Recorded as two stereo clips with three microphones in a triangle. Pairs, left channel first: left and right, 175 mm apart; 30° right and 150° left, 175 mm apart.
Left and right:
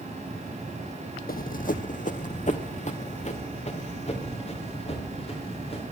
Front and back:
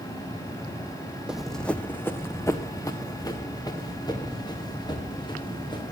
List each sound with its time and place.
1.3 s running footsteps: 65° left, 0.5 m; by 5.8 s 35° left, 3.5 m